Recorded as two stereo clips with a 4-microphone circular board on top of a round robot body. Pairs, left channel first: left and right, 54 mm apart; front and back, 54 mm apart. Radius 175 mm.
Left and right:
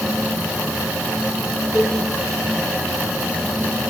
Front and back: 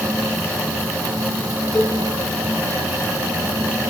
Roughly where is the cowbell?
Left.